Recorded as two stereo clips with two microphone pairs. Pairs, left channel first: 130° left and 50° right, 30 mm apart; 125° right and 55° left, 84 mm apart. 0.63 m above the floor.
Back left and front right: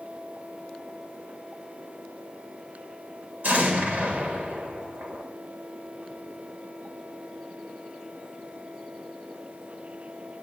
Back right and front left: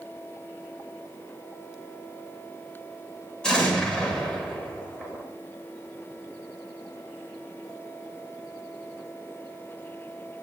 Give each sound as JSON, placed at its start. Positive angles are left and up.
{"t": 3.4, "sound": "an explosion", "azimuth_deg": -45, "distance_m": 1.6}